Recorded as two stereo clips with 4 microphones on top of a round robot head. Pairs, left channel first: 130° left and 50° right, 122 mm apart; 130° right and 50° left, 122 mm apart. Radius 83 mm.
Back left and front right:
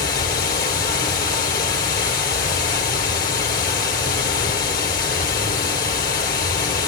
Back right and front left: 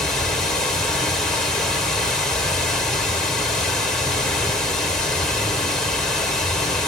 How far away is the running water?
About 2.5 m.